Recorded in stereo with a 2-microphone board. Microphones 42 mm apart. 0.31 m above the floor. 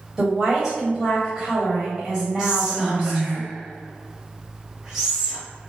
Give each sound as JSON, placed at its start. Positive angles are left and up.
{"t": 0.2, "sound": "a woman speaking", "side_deg": -20, "distance_m": 1.5}
{"t": 2.4, "sound": "whispering", "side_deg": -20, "distance_m": 1.7}